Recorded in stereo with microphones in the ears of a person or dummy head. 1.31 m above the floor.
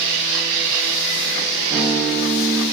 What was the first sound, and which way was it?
A guitar, 30° right (ahead or behind).